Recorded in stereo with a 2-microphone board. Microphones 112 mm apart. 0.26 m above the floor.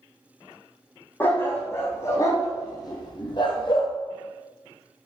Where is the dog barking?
15° left (ahead or behind), 3.5 m; by 3.9 s 50° left (ahead or behind), 2.5 m.